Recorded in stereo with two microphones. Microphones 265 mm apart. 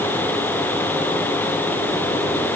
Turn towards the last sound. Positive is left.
No sound to turn to.